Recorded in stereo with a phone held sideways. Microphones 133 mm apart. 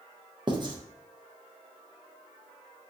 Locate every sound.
0.5 s writing: 35° right (ahead or behind), 0.5 m